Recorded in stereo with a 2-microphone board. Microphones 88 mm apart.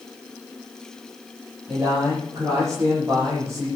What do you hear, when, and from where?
1.7 s a man speaking: 35° right (ahead or behind), 6.5 m